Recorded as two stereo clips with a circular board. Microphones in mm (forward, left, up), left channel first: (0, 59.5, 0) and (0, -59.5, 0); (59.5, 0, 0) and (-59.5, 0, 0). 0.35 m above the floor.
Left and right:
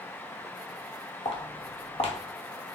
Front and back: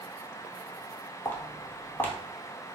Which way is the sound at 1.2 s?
70° left.